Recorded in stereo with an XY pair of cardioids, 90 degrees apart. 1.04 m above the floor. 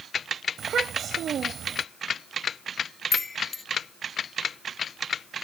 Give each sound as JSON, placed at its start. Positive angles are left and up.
{"t": 0.6, "sound": "a child speaking", "azimuth_deg": -65}
{"t": 3.1, "sound": "a chime", "azimuth_deg": 30}